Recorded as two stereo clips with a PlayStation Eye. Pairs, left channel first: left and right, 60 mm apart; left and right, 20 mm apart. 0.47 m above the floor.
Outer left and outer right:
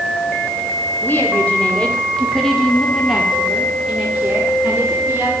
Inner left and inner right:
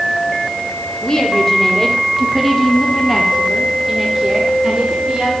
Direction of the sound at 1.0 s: 35° left (ahead or behind).